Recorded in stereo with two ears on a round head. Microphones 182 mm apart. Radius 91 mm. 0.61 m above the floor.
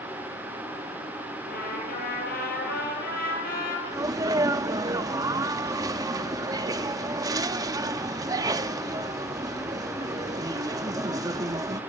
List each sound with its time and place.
1.5 s a trumpet: 45° left (ahead or behind), 9 m
3.9 s a sneeze: 20° right (ahead or behind), 0.7 m